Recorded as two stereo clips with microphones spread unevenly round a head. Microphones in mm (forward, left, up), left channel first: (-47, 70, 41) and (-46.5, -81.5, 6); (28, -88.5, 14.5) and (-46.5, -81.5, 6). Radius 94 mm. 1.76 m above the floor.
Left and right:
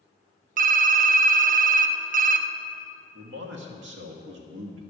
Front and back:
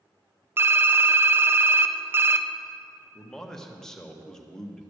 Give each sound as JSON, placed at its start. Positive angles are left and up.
{"t": 0.6, "sound": "typing on a keyboard", "azimuth_deg": -125, "distance_m": 0.6}
{"t": 3.1, "sound": "a man speaking", "azimuth_deg": -85, "distance_m": 1.4}